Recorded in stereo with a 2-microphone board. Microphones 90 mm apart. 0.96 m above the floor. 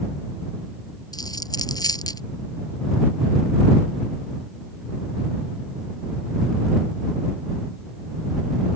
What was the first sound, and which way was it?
A dropped coin, 45° left (ahead or behind).